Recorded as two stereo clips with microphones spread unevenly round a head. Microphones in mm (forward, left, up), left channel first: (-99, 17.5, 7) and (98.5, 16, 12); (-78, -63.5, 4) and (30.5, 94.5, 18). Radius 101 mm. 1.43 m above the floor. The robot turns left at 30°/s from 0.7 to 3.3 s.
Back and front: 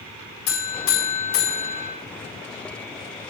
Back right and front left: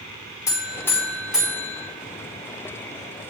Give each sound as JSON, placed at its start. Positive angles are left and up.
{"t": 0.5, "sound": "a buzzer", "azimuth_deg": 160, "distance_m": 5.0}